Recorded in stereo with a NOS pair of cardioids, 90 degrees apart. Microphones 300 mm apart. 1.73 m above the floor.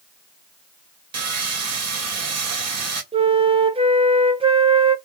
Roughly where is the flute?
Ahead.